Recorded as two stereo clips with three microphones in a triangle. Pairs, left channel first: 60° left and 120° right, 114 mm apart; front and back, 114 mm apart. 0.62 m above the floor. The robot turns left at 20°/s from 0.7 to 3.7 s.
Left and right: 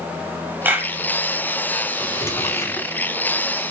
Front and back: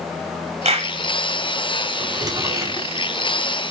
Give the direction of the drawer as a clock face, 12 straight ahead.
8 o'clock.